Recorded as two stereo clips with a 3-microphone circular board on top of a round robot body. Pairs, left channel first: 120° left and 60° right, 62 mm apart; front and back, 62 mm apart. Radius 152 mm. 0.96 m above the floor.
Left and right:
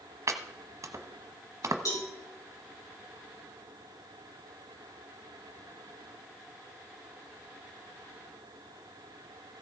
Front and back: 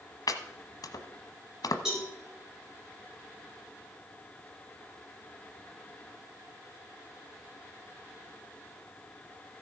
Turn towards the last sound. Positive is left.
turn(degrees=100)